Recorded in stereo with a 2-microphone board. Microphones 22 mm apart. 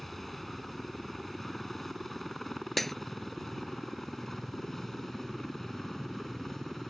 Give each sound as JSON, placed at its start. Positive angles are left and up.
{"t": 0.0, "sound": "a helicopter", "side_deg": 10}
{"t": 2.8, "sound": "breaking glass", "side_deg": 5}